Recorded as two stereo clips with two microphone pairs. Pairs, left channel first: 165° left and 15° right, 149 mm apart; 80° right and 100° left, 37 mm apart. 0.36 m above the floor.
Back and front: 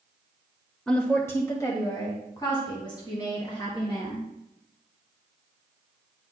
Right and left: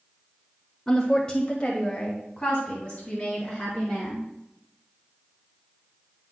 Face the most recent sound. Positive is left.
turn(degrees=-140)